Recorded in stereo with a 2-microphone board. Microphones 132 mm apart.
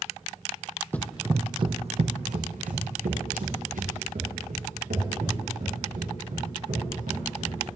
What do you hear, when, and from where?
0.9 s running footsteps: 15° left (ahead or behind), 0.5 m; by 7.5 s 85° right, 5 m